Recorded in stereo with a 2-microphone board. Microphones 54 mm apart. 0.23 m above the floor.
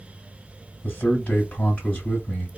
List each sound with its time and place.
0.8 s a man speaking: 20° left (ahead or behind), 1.3 m